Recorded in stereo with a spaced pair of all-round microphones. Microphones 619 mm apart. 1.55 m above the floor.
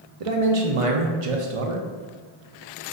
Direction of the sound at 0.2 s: 60° right (ahead or behind).